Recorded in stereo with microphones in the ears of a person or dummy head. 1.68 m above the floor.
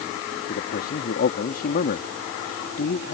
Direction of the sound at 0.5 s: 60° left (ahead or behind).